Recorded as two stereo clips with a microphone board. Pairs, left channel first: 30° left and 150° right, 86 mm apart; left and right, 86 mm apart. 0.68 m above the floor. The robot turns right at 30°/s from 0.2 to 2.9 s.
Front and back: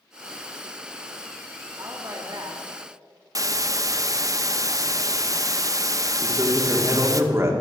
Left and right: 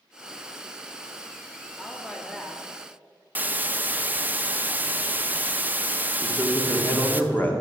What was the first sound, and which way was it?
A woman speaking, 165° left.